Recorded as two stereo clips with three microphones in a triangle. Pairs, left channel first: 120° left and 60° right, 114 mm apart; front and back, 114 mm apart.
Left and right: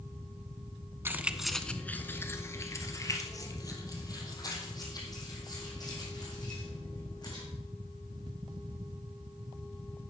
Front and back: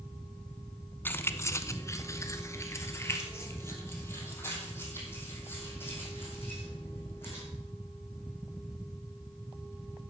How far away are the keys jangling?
About 0.7 m.